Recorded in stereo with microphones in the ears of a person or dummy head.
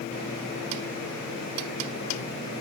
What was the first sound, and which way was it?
Only background noise.